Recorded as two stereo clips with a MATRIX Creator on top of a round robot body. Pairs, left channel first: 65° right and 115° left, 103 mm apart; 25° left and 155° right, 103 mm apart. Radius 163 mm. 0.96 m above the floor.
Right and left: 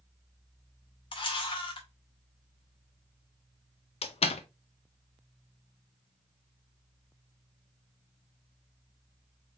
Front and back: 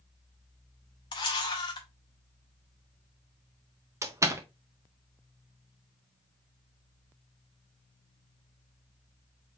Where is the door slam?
95° right, 0.5 m.